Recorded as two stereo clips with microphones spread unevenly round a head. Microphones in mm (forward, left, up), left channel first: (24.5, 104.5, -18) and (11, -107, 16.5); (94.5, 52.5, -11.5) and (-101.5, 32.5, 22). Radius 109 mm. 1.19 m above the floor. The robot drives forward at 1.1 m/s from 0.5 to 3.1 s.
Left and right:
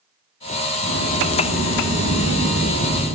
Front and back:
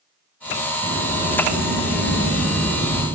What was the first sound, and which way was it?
A sliding door, 130° left.